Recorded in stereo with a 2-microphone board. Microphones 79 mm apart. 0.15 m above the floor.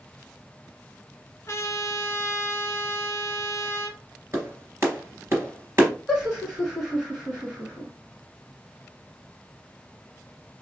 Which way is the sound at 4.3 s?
35° right (ahead or behind).